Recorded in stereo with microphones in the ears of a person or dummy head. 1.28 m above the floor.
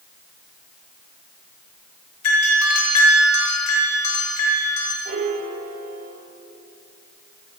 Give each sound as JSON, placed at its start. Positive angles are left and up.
{"t": 2.2, "sound": "a doorbell", "side_deg": 85, "distance_m": 7.5}
{"t": 5.0, "sound": "a piano", "side_deg": -40, "distance_m": 4.0}